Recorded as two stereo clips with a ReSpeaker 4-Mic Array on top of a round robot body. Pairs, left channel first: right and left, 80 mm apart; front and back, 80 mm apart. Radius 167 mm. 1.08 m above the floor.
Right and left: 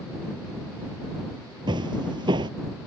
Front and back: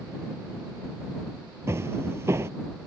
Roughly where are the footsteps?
Behind left.